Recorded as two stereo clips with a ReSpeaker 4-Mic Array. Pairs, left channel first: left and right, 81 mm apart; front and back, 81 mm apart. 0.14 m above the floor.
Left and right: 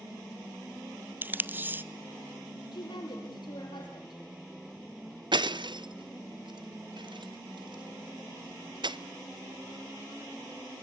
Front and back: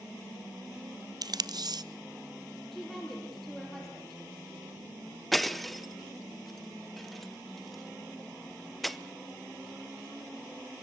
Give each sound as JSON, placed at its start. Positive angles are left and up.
{"t": 1.2, "sound": "tape being pulled", "azimuth_deg": -155, "distance_m": 0.6}
{"t": 2.7, "sound": "a woman speaking", "azimuth_deg": 85, "distance_m": 3.5}
{"t": 5.3, "sound": "breaking glass", "azimuth_deg": -90, "distance_m": 0.6}